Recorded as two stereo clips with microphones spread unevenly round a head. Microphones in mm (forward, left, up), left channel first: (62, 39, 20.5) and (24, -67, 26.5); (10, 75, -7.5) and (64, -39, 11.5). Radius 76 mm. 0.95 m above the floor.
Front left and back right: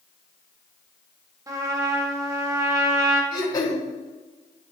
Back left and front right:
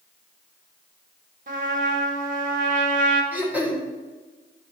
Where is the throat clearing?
15° left, 2 m.